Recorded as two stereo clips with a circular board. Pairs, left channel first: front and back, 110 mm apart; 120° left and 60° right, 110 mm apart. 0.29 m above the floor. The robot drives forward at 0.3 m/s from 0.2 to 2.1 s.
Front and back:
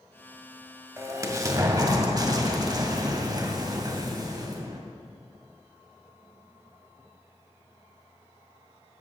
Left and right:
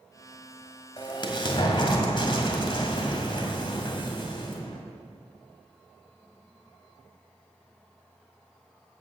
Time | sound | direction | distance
1.0 | an explosion | 130° left | 1.8 m